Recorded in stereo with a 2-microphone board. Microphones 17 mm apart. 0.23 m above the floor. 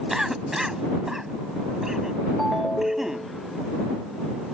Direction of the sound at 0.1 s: 25° right (ahead or behind).